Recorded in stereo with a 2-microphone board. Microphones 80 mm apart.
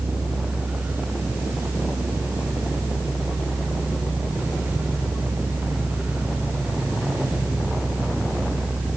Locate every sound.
Only background noise.